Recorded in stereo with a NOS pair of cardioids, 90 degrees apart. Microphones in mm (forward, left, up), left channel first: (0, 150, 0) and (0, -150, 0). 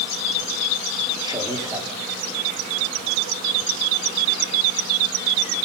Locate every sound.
1.2 s a man speaking: 15° right, 4 m